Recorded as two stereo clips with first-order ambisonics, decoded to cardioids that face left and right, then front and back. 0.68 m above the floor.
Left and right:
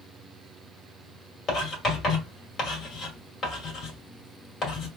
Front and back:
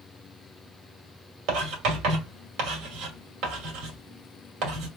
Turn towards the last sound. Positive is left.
turn(degrees=155)